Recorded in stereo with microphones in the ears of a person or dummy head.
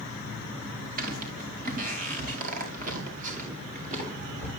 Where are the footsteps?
50° right (ahead or behind), 4 m; by 4.5 s 45° right (ahead or behind), 6 m.